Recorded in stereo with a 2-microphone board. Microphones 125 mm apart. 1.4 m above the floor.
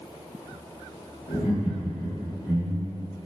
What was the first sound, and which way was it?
Laughter, 75° left (ahead or behind).